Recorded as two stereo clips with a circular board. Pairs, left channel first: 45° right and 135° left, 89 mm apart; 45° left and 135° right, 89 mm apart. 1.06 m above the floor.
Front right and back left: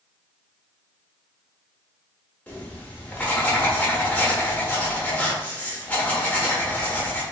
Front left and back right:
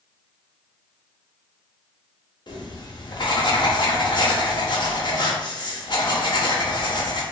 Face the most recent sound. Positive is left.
turn(degrees=25)